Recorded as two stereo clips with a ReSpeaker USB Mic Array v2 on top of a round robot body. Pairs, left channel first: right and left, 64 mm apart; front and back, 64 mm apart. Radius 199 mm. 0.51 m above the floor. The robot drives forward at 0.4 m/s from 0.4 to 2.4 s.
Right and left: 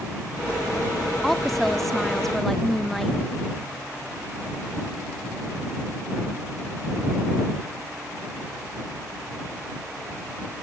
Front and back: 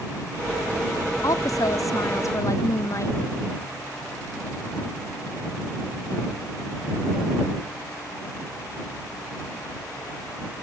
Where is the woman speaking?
5° right.